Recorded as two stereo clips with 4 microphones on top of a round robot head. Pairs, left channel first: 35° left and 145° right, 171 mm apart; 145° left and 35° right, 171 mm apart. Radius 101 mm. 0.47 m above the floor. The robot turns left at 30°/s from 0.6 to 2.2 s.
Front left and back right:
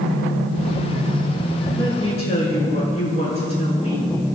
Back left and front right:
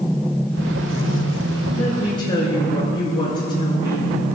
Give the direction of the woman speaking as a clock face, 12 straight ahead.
9 o'clock.